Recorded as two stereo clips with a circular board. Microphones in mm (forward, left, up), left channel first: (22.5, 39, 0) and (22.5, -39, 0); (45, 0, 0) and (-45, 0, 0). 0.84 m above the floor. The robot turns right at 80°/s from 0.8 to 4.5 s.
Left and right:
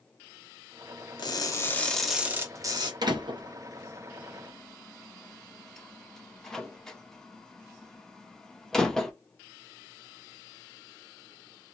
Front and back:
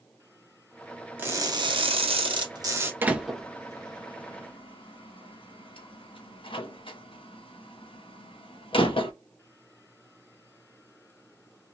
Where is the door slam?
115° right, 0.5 m; by 9.1 s 5° left, 0.5 m.